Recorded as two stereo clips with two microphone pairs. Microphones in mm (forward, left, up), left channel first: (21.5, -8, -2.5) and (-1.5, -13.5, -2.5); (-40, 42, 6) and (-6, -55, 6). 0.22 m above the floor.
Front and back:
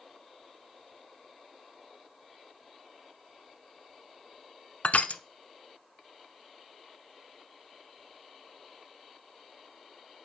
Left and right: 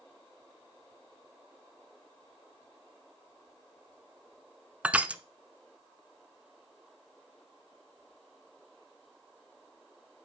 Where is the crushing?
5° left, 0.5 m.